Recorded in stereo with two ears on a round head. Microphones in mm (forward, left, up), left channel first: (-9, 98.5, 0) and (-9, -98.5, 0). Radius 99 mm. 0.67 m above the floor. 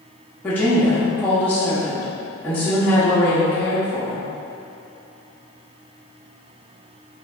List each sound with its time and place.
0.4 s a woman speaking: 10° left (ahead or behind), 0.9 m